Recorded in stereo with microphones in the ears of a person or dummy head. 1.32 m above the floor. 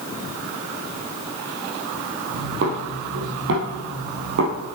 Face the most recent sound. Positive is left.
turn(degrees=-50)  # may be behind; listen again after turning